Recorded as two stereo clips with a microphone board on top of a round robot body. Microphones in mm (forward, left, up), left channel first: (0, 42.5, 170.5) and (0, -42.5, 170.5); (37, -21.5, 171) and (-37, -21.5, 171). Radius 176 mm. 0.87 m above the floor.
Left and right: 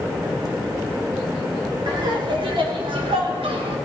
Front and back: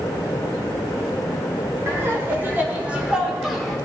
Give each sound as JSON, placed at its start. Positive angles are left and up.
{"t": 1.9, "sound": "laughter", "azimuth_deg": -125, "distance_m": 3.5}